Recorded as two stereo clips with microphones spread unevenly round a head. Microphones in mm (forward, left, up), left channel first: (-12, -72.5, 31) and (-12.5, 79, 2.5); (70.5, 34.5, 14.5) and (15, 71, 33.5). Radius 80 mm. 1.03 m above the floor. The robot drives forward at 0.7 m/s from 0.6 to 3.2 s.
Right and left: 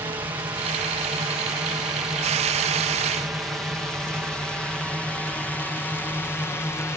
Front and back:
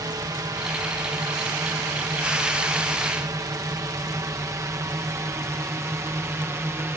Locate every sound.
0.0 s a drone: 150° left; by 7.0 s 165° right